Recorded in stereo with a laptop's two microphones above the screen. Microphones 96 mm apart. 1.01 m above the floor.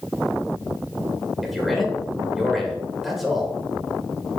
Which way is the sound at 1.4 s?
Centre (ahead or behind).